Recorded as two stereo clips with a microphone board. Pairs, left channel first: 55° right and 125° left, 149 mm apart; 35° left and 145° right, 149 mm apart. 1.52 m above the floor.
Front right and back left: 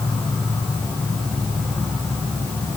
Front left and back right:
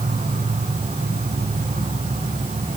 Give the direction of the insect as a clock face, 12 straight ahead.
5 o'clock.